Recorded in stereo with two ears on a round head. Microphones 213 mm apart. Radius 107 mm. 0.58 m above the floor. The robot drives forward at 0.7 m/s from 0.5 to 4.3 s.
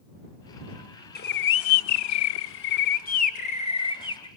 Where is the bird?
40° left (ahead or behind), 0.8 m; by 4.3 s 20° left (ahead or behind), 1.7 m.